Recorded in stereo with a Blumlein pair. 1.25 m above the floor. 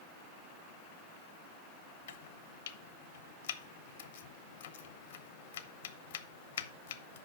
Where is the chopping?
60° left, 0.9 m.